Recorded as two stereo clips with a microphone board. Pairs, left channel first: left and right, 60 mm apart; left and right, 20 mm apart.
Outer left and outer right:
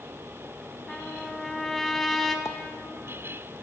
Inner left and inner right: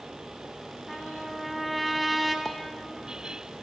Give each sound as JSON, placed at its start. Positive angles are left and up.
{"t": 0.9, "sound": "a trumpet", "side_deg": 5, "distance_m": 3.0}
{"t": 2.5, "sound": "a pop", "side_deg": 55, "distance_m": 1.6}